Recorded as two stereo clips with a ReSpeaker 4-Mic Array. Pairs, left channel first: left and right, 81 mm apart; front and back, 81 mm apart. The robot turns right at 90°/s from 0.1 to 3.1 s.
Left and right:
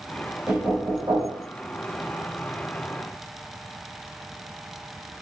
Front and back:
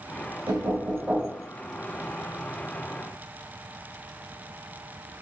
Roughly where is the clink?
No clink in this recording.